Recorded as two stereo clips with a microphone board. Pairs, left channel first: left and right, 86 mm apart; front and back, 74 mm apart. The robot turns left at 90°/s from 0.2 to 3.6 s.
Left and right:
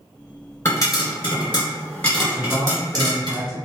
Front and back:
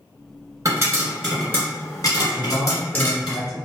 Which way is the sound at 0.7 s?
150° left.